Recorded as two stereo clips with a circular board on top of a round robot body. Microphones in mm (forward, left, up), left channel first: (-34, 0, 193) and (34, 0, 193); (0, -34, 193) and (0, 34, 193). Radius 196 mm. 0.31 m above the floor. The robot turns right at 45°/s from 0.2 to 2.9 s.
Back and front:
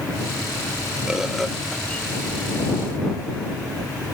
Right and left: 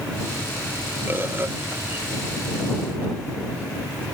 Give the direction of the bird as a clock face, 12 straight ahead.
10 o'clock.